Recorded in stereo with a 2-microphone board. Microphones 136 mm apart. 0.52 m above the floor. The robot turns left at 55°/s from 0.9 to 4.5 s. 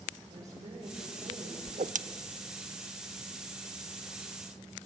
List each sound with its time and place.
0.3 s a woman speaking: 50° right, 10 m; by 1.6 s 85° right, 10 m
1.7 s a whoosh: 60° right (ahead or behind), 0.7 m; by 2.0 s 70° right (ahead or behind), 0.7 m